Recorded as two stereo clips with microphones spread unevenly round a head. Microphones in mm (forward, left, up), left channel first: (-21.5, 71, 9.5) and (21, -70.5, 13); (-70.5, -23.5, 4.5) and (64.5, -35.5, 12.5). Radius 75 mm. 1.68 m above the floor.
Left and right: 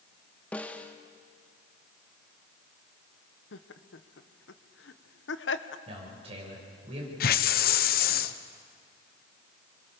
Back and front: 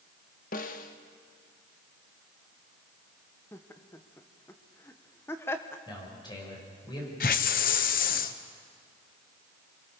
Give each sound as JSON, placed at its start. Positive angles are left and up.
{"t": 0.5, "sound": "a snare drum", "azimuth_deg": -170, "distance_m": 1.2}
{"t": 3.5, "sound": "laughter", "azimuth_deg": 100, "distance_m": 1.2}
{"t": 5.9, "sound": "a man speaking", "azimuth_deg": -125, "distance_m": 7.0}
{"t": 7.2, "sound": "a hiss", "azimuth_deg": 135, "distance_m": 0.9}